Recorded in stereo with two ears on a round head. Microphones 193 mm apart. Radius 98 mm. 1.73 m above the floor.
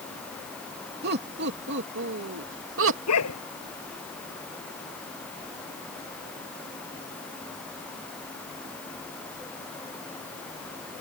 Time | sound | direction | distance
1.0 | laughter | 50° right (ahead or behind) | ?
3.1 | a dog barking | 85° left | ?